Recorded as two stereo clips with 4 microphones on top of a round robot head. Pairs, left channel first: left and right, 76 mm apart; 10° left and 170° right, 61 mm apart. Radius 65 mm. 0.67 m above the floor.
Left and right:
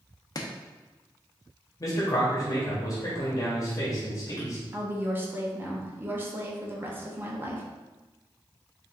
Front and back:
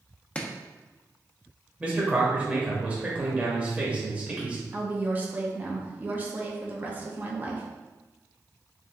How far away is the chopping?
About 0.7 m.